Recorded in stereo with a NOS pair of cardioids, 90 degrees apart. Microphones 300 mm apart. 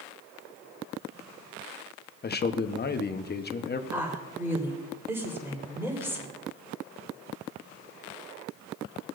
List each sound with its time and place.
2.2 s a man speaking: 30° left, 1.0 m
3.9 s a woman speaking: 10° right, 4 m